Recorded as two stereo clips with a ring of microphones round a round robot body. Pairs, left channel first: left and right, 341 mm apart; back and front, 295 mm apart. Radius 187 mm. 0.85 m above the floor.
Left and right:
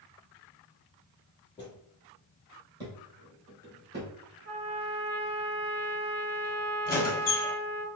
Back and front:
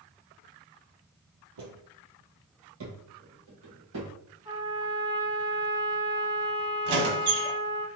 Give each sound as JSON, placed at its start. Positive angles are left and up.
{"t": 1.6, "sound": "footsteps", "azimuth_deg": 15, "distance_m": 1.6}
{"t": 4.5, "sound": "a trumpet", "azimuth_deg": -70, "distance_m": 1.2}
{"t": 6.8, "sound": "a squeak", "azimuth_deg": 25, "distance_m": 1.0}